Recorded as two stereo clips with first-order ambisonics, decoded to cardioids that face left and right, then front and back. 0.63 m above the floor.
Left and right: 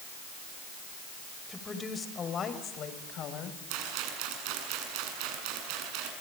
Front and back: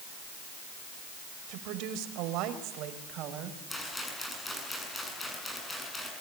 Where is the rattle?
80° right, 7.5 m.